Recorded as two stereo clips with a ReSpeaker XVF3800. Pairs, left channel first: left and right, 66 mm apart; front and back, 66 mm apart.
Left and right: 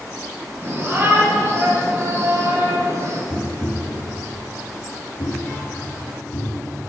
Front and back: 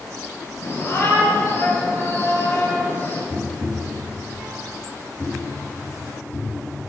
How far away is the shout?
About 5 m.